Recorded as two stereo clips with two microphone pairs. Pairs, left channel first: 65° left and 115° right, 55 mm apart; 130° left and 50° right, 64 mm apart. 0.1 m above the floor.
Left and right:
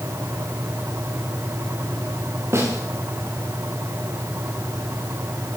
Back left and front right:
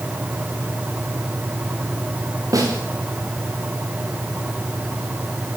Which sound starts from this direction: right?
A snare drum, at 2.5 s.